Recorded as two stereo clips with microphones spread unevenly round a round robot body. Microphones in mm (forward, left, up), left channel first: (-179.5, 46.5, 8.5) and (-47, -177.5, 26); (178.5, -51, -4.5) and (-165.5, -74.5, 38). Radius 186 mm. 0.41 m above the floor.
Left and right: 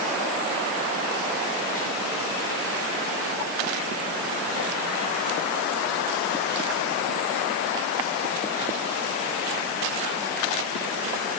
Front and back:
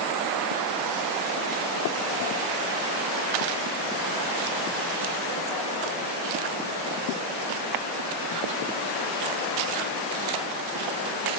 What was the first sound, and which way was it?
Only background noise.